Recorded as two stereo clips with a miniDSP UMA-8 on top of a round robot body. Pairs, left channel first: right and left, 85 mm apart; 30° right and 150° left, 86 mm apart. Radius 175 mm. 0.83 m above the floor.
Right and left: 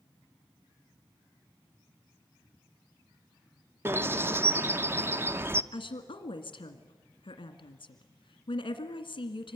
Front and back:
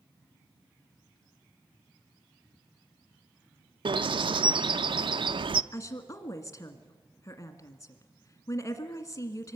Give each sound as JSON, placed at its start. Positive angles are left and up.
{"t": 3.9, "sound": "a bird", "azimuth_deg": 150, "distance_m": 0.8}
{"t": 5.7, "sound": "a woman speaking", "azimuth_deg": -70, "distance_m": 1.9}